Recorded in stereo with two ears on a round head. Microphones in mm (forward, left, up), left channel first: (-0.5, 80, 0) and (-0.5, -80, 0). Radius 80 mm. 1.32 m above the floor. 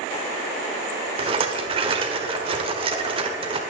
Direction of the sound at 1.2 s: 30° right (ahead or behind).